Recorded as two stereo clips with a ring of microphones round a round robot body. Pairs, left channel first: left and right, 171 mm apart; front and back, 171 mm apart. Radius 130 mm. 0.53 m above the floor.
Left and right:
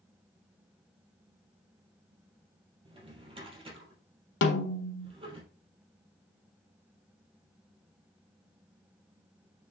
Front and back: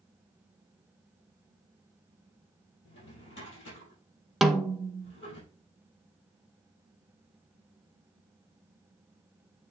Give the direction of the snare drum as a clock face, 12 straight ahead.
9 o'clock.